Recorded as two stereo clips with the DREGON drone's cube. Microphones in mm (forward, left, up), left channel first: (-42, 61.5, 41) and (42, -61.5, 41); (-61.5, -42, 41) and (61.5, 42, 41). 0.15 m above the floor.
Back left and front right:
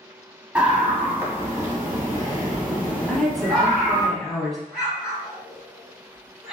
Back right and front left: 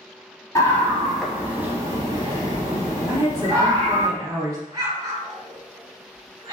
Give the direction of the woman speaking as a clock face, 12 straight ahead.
11 o'clock.